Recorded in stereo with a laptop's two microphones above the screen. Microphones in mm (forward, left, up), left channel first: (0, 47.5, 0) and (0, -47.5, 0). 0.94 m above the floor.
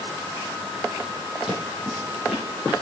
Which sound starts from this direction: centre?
Footsteps, at 1.5 s.